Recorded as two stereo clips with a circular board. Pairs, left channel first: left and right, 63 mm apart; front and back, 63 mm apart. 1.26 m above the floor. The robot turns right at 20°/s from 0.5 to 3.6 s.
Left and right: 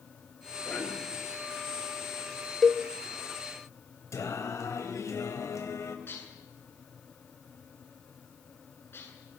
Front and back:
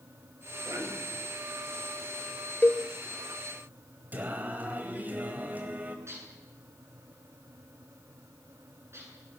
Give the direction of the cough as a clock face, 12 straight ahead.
7 o'clock.